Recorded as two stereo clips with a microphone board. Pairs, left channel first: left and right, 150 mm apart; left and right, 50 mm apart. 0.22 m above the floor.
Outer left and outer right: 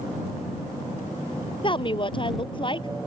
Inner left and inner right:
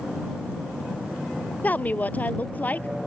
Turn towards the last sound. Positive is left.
turn(degrees=35)  # may be behind; listen again after turning